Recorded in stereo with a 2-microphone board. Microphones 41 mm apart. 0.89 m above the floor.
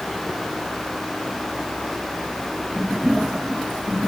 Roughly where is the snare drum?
I don't hear a snare drum.